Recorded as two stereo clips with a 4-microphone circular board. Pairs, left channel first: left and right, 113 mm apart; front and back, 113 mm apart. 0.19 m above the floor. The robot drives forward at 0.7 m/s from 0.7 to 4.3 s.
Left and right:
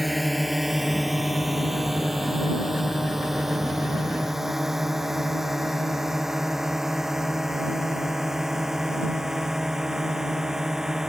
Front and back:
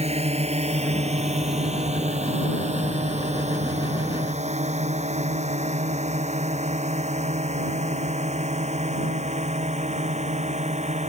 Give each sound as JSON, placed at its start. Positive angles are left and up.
{"t": 0.0, "sound": "a drone", "azimuth_deg": 180}